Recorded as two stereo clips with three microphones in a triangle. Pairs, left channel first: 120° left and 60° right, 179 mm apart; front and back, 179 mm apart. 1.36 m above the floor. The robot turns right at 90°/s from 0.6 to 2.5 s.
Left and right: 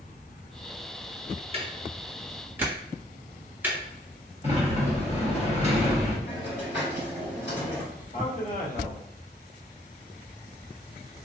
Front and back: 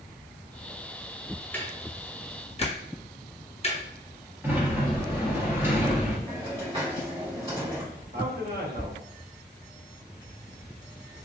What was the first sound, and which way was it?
Ticking, 75° right.